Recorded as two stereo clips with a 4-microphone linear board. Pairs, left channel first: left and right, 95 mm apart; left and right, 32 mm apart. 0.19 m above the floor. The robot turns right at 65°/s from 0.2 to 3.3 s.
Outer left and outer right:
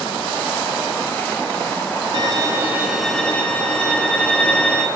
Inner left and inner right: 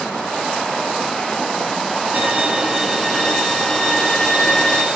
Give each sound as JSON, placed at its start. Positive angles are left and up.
{"t": 2.1, "sound": "a violin", "azimuth_deg": -60, "distance_m": 0.9}